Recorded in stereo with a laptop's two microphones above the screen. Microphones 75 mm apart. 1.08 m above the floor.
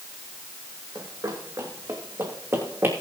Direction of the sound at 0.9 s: 55° right (ahead or behind).